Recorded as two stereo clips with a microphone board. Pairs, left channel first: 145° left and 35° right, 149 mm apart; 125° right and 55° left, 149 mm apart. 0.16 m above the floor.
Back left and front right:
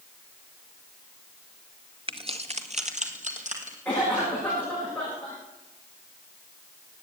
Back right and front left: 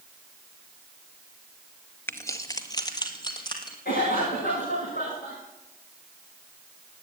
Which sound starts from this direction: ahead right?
Keys jangling, at 2.1 s.